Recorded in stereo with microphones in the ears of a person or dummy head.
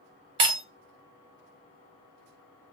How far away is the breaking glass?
About 0.8 m.